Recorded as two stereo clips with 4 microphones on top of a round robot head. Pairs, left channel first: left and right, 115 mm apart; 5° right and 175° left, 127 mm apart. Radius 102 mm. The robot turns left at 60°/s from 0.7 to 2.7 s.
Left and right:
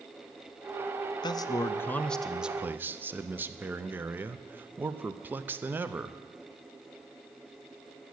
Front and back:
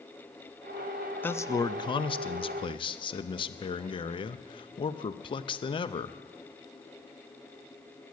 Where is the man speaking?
65° left, 0.6 m; by 6.2 s 25° right, 0.6 m.